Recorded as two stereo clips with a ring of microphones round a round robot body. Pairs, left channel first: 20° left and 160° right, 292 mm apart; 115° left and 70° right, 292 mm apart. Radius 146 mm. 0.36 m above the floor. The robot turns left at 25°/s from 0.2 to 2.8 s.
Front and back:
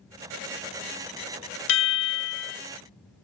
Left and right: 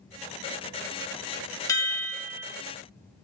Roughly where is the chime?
Ahead left.